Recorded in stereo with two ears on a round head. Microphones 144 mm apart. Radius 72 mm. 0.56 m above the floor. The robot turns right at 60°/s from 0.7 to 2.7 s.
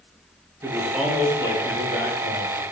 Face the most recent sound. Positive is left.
turn(degrees=100)